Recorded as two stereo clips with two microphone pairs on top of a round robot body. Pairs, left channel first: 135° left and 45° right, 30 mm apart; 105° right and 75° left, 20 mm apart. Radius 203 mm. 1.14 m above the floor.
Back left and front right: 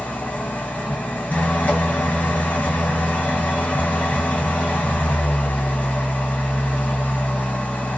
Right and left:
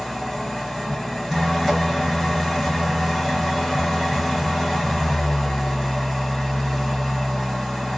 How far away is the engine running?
About 1.2 m.